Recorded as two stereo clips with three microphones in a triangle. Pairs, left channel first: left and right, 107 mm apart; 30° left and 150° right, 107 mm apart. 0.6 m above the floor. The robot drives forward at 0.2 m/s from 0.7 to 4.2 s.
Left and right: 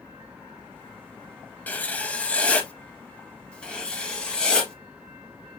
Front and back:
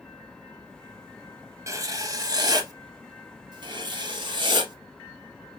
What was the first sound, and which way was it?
Writing, 160° left.